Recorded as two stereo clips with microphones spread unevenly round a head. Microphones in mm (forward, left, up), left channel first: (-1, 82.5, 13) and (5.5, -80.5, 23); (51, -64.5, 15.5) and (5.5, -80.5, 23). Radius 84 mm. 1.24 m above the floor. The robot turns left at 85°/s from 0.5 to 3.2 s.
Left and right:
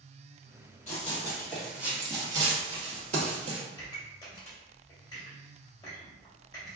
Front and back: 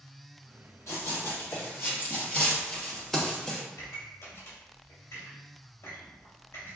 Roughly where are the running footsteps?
Ahead left.